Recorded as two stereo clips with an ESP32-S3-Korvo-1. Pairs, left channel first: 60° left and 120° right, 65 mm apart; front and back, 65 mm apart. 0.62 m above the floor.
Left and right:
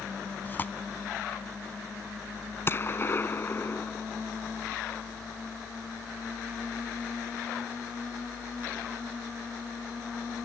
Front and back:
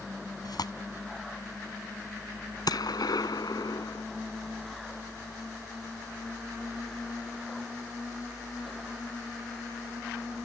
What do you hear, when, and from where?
0.5 s tearing paper: straight ahead
2.7 s a gunshot: 5° left